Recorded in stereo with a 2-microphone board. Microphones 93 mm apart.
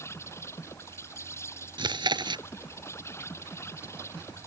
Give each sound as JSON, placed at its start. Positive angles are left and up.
{"t": 0.0, "sound": "an insect", "side_deg": 30}
{"t": 1.8, "sound": "chewing", "side_deg": -55}